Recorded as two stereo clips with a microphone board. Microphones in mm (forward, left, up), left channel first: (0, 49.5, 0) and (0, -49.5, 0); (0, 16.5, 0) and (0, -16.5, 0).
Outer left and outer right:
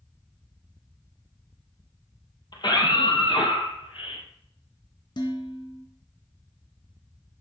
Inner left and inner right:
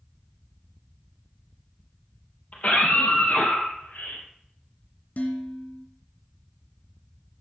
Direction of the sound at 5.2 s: 50° left (ahead or behind).